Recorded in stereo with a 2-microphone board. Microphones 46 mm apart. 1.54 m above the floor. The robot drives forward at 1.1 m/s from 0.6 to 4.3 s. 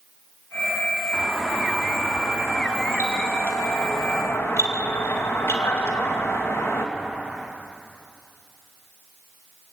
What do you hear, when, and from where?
1.1 s a doorbell: 35° left (ahead or behind), 4.5 m; by 6.9 s 80° left, 2.5 m